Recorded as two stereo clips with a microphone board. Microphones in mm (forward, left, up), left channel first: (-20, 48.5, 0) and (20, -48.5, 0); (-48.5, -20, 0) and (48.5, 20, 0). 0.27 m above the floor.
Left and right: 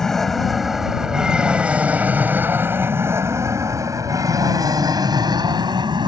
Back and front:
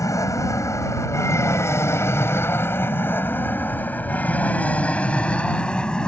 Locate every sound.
0.0 s an aircraft: 165° right; by 6.1 s 80° right